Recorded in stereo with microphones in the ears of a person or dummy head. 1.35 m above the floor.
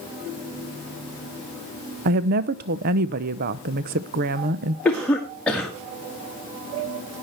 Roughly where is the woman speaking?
Right.